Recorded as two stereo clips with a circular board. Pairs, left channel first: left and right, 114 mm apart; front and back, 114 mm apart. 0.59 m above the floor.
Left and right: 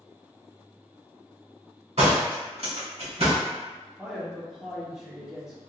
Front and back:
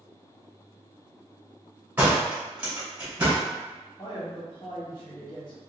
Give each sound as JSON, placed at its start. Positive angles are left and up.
{"t": 2.0, "sound": "a door slam", "azimuth_deg": -105, "distance_m": 1.8}
{"t": 4.0, "sound": "a man speaking", "azimuth_deg": -5, "distance_m": 1.2}